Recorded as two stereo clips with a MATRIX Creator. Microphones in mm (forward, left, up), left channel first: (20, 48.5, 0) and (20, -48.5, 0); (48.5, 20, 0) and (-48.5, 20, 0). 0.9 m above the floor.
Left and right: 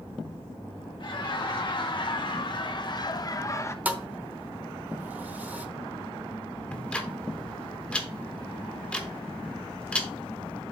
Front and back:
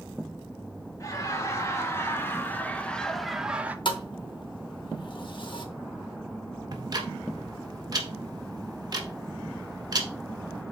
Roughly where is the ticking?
Behind.